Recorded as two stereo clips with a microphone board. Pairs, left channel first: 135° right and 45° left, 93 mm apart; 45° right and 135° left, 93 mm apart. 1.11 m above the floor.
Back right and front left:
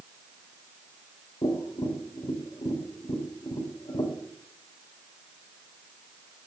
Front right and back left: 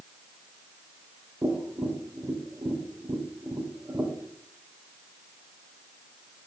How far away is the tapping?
About 2.5 m.